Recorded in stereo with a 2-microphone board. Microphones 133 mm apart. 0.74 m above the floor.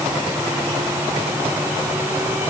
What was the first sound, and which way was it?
Only background noise.